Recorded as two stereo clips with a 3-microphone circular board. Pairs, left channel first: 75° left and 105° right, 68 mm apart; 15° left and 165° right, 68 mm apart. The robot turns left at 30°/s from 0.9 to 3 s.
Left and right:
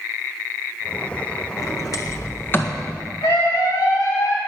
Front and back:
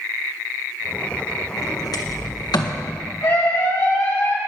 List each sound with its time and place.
1.6 s a sliding door: 45° left, 1.6 m; by 2.8 s 5° left, 1.6 m
3.2 s a scream: 55° left, 7.5 m